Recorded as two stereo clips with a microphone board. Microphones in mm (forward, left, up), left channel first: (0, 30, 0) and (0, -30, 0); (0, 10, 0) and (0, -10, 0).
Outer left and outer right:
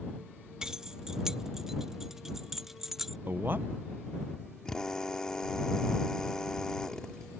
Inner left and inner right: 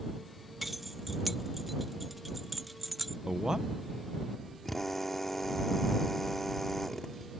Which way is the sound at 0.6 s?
10° right (ahead or behind).